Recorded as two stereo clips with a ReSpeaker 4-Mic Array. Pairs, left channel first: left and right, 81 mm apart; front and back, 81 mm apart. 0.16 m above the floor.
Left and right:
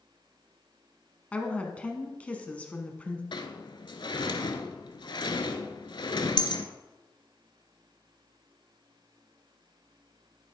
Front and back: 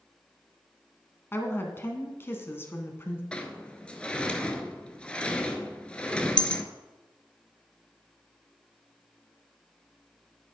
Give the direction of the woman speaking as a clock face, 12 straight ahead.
11 o'clock.